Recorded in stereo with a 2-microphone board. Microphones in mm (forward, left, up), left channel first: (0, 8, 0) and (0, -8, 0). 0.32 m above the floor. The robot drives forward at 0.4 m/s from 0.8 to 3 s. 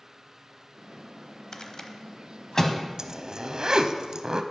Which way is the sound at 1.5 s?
50° left (ahead or behind).